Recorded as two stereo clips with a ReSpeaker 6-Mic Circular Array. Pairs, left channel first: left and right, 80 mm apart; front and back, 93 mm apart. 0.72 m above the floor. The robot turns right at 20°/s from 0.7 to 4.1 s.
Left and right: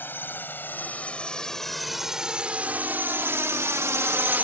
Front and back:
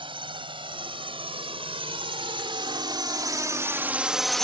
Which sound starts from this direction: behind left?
A drone, at 0.0 s.